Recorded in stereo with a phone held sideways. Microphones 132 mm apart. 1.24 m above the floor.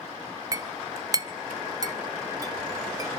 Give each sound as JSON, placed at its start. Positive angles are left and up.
{"t": 0.5, "sound": "a clink", "side_deg": -25, "distance_m": 0.7}